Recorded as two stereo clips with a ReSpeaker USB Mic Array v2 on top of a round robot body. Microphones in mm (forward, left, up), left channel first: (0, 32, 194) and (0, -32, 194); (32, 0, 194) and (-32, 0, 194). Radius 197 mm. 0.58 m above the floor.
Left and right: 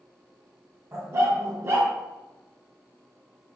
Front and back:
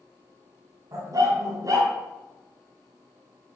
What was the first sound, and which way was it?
A dog barking, 140° right.